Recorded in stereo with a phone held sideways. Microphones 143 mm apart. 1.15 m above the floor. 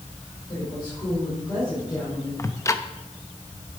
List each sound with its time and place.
0.5 s a woman speaking: 35° left (ahead or behind), 5.5 m; by 2.3 s 20° left (ahead or behind), 5 m
2.4 s ticking: 20° left (ahead or behind), 0.7 m